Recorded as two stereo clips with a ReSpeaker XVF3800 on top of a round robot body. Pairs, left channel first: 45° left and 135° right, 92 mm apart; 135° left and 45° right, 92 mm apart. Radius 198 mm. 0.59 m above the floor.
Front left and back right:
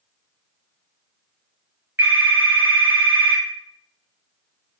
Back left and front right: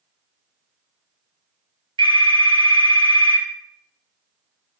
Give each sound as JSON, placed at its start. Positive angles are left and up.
{"t": 2.0, "sound": "a phone ringing", "azimuth_deg": -70, "distance_m": 2.0}